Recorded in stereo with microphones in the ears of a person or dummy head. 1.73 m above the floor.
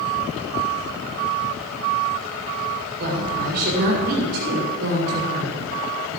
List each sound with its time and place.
3.0 s a woman speaking: 55° right (ahead or behind), 7 m